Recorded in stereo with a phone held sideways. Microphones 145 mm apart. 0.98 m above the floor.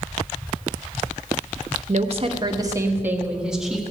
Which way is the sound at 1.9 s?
55° right (ahead or behind).